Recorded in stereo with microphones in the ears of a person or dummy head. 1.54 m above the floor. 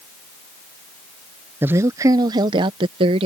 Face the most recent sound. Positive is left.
turn(degrees=-35)  # may be behind; listen again after turning